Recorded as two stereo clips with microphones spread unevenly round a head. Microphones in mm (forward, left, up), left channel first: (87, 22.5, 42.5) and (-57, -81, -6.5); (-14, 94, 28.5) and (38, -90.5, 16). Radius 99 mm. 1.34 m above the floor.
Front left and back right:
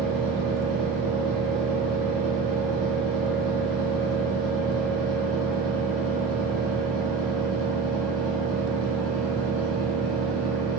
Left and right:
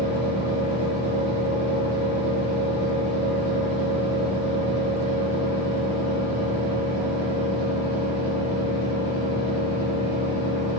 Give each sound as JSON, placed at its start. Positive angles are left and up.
{"t": 0.0, "sound": "a fan", "azimuth_deg": 135, "distance_m": 2.0}